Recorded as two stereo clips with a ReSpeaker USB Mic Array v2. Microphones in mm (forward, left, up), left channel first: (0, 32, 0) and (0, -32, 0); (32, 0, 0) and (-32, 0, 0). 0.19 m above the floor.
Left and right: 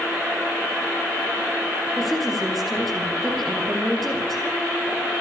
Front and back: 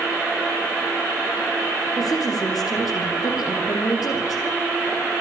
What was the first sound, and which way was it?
A woman speaking, straight ahead.